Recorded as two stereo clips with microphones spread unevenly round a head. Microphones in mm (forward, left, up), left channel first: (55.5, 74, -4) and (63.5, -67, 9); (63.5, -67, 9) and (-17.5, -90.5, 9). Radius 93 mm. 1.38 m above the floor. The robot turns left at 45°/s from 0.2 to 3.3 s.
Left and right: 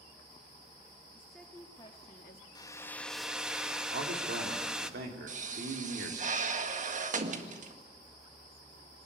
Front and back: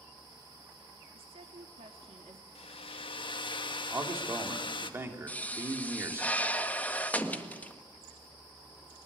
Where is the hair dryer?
30° left, 1.4 m; by 4.9 s 5° right, 1.4 m.